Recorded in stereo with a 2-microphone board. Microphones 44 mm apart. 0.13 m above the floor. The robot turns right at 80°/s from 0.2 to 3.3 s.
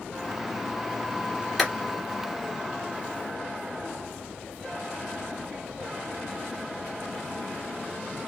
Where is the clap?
Centre (ahead or behind), 1.5 m; by 1.7 s 5° right (ahead or behind), 1.5 m.